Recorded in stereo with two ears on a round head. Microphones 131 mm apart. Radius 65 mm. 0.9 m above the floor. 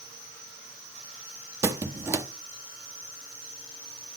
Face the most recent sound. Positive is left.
turn(degrees=-20)  # may be behind; listen again after turning